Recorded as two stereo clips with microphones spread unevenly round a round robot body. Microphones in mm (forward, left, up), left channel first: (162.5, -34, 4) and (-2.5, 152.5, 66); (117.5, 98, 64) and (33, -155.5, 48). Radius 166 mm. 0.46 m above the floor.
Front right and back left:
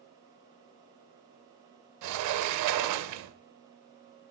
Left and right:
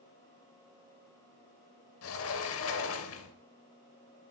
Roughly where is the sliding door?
Behind left.